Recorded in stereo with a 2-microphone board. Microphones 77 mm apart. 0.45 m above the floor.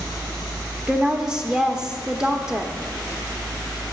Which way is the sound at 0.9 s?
10° right (ahead or behind).